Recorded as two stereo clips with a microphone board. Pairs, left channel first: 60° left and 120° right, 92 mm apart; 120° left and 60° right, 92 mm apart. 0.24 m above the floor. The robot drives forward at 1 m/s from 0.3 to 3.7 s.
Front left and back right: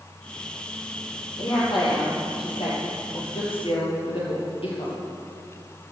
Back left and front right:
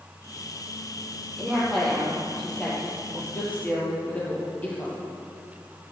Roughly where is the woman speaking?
Ahead left.